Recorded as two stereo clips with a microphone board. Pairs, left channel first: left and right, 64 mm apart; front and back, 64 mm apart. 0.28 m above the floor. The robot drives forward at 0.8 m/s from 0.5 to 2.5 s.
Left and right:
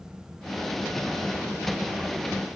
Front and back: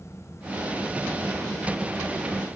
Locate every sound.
Only background noise.